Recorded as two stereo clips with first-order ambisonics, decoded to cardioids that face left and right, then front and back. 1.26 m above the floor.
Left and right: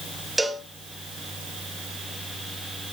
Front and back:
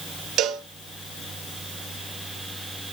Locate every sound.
0.4 s a cowbell: 170° right, 0.8 m